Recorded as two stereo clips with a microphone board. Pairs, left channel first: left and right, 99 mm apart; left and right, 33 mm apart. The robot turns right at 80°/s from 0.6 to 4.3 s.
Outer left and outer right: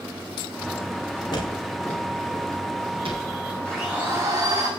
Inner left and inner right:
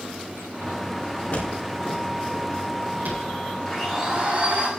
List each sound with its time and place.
1.3 s footsteps: 55° left (ahead or behind), 7 m; by 3.5 s 80° right, 7.5 m
3.6 s a blender: 170° left, 6 m; by 4.7 s 140° right, 6 m